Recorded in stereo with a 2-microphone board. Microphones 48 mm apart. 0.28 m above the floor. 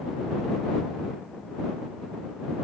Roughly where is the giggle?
I don't hear a giggle.